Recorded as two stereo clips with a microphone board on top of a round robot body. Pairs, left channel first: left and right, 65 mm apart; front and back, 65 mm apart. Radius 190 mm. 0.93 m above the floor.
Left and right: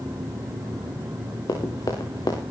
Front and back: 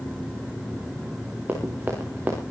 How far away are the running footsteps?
About 4.5 m.